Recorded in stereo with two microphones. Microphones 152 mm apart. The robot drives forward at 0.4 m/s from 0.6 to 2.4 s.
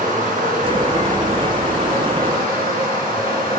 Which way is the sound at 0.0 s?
65° right (ahead or behind).